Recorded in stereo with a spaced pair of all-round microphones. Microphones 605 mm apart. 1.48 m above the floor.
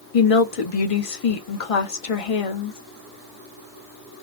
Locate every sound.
0.1 s a woman speaking: 60° left (ahead or behind), 0.8 m